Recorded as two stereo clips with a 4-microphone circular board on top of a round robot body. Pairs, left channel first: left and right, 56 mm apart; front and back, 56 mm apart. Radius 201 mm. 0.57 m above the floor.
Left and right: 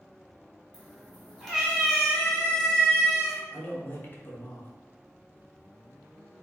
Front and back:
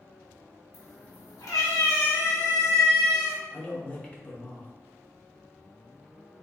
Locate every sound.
0.7 s a cat meowing: 5° left, 1.8 m
3.5 s a man speaking: 55° left, 1.4 m